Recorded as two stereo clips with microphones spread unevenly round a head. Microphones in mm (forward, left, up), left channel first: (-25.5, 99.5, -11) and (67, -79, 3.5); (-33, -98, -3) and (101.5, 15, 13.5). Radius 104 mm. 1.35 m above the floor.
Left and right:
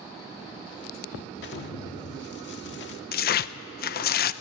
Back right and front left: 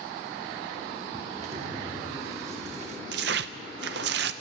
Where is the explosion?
90° left, 1.3 m.